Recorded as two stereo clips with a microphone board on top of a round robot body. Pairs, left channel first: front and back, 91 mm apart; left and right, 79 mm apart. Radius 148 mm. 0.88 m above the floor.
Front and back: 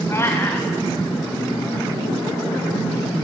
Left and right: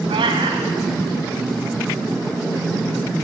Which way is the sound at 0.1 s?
65° right.